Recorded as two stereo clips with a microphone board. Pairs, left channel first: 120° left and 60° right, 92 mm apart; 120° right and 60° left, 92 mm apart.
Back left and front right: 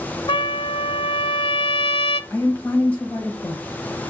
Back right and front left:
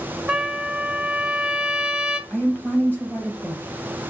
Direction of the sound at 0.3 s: 145° left.